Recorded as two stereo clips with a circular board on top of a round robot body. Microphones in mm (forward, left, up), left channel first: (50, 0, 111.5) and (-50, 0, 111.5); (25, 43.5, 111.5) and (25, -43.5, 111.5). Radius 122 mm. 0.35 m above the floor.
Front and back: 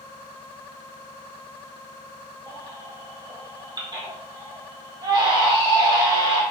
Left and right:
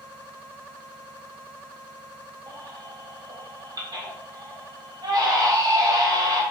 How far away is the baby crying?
About 1.3 m.